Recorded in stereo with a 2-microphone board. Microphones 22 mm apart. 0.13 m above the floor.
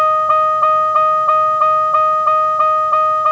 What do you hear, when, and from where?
0.0 s a vehicle: 20° left (ahead or behind); by 3.3 s 25° left (ahead or behind)